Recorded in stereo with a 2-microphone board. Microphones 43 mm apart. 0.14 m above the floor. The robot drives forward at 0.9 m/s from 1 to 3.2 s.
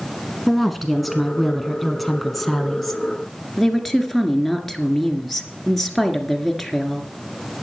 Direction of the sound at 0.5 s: Centre (ahead or behind).